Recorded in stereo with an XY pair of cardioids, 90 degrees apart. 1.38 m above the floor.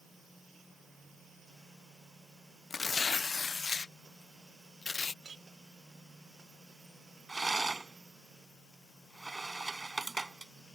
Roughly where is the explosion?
No explosion in this recording.